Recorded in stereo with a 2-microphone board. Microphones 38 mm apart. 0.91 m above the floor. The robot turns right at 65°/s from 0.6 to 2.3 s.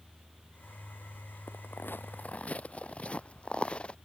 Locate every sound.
1.5 s footsteps: 80° left; by 3.9 s 25° left (ahead or behind)